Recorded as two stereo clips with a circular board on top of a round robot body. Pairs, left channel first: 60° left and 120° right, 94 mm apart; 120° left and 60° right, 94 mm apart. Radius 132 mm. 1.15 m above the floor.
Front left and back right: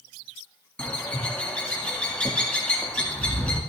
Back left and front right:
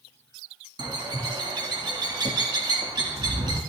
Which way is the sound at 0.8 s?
20° right.